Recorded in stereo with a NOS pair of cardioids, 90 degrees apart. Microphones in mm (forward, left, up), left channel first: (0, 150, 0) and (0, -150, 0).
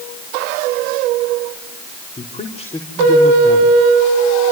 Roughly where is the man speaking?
Ahead.